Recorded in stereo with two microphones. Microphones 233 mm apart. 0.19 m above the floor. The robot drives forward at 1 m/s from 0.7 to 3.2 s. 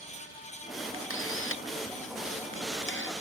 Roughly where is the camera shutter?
Left.